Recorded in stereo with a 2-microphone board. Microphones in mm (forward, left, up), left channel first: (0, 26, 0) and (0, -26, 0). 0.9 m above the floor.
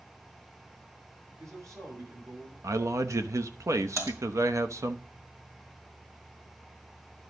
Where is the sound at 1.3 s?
60° right (ahead or behind), 7 m.